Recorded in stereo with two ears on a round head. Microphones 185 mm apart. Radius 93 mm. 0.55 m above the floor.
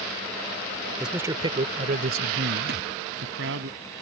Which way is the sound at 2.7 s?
50° right (ahead or behind).